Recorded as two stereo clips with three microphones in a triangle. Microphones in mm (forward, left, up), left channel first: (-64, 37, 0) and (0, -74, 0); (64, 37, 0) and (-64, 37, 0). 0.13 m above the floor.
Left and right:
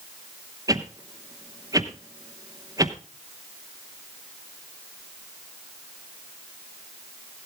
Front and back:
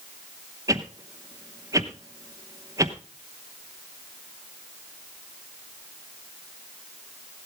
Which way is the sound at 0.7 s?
120° right.